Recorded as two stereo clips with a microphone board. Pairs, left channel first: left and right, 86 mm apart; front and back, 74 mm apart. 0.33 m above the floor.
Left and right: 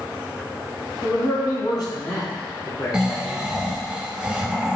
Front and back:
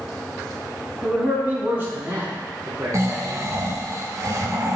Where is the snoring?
170° right, 1.6 m.